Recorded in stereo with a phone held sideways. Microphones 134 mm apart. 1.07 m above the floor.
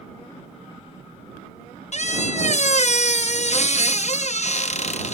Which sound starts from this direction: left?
A squeak, at 1.9 s.